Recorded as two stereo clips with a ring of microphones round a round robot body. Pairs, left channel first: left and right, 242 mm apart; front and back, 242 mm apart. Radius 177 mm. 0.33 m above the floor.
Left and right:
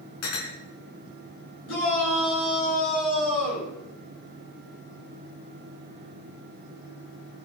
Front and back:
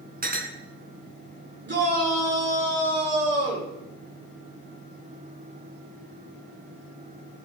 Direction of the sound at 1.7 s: 140° left.